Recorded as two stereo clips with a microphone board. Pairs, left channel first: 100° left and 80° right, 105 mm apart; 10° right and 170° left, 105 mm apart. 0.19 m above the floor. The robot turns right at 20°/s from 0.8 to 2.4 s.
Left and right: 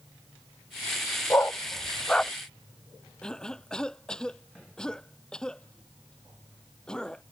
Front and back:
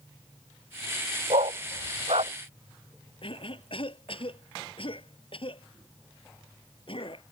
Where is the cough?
20° left.